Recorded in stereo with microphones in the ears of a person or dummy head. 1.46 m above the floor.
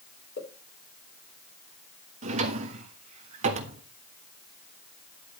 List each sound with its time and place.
0.4 s a pop: 70° left (ahead or behind), 4 m
2.2 s a drawer: 40° right (ahead or behind), 1.4 m